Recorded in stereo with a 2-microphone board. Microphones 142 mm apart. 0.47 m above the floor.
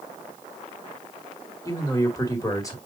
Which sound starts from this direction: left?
A man speaking, at 1.6 s.